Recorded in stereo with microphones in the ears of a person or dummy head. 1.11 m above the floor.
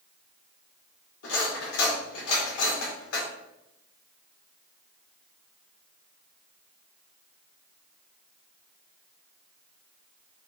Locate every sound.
1.2 s cutlery clinking: 75° left (ahead or behind), 1.9 m